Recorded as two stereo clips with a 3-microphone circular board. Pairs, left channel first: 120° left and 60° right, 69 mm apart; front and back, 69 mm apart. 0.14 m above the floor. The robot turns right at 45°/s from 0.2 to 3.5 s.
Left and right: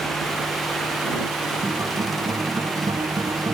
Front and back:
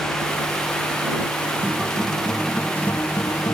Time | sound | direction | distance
1.6 | a guitar | 115° right | ?